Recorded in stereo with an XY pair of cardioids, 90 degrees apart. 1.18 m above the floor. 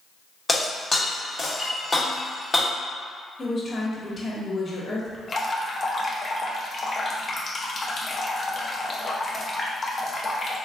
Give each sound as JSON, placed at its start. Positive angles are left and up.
{"t": 0.5, "sound": "breaking glass", "azimuth_deg": 25, "distance_m": 1.2}
{"t": 3.4, "sound": "a woman speaking", "azimuth_deg": 35, "distance_m": 1.3}
{"t": 5.3, "sound": "dripping", "azimuth_deg": 35, "distance_m": 0.7}